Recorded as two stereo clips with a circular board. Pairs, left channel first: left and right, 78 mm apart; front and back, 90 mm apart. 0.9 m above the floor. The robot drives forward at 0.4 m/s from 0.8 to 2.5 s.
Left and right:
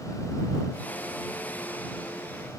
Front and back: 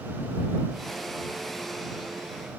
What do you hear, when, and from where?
Only background noise.